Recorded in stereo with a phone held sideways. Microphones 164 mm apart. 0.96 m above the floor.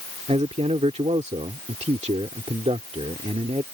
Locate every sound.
0.3 s a man speaking: 40° right (ahead or behind)